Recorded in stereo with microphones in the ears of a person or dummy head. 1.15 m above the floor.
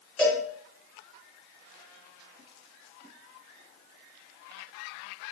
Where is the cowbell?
5° left (ahead or behind), 3 m.